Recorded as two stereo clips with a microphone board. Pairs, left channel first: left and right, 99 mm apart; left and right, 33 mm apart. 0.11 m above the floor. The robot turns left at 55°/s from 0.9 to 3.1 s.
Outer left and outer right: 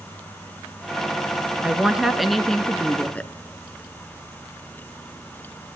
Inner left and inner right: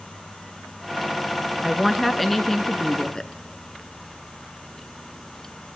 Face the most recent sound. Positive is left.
turn(degrees=15)  # may be behind; listen again after turning